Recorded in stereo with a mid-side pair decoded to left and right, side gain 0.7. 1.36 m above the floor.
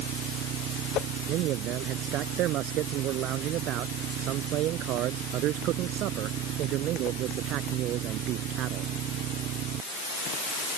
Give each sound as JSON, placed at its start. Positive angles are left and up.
{"t": 1.3, "sound": "a man speaking", "azimuth_deg": -60}